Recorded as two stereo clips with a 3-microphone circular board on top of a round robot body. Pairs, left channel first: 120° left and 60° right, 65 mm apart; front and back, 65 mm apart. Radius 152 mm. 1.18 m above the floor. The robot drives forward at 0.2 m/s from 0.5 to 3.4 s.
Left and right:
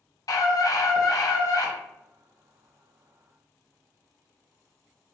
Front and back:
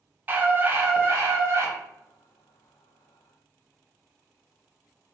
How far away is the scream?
About 0.9 m.